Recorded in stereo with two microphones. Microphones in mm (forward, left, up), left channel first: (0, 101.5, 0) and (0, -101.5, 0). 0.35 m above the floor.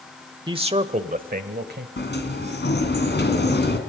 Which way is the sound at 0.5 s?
25° right (ahead or behind).